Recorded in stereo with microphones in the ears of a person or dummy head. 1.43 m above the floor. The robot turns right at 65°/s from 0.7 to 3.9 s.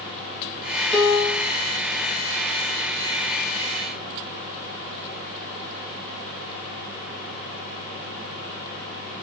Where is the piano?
5° left, 0.9 m; by 1.5 s 45° left, 0.9 m.